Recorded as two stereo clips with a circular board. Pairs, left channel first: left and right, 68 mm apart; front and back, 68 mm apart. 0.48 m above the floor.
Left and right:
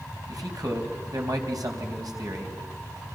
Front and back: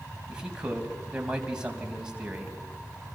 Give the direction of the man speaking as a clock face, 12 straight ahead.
3 o'clock.